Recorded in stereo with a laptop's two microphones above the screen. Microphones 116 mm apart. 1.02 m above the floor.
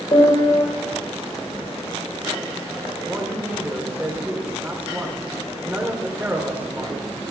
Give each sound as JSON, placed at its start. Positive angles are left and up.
{"t": 0.1, "sound": "a piano", "side_deg": 50, "distance_m": 4.0}
{"t": 3.0, "sound": "a man speaking", "side_deg": -20, "distance_m": 3.5}